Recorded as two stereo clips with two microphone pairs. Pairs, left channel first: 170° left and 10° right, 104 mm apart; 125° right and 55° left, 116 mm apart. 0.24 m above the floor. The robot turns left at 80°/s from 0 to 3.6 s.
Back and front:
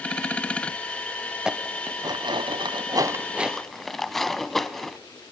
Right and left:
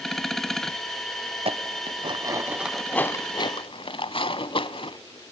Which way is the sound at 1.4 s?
75° left.